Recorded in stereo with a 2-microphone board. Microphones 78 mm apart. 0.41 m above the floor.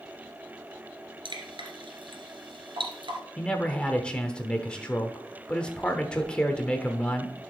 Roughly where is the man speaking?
Centre.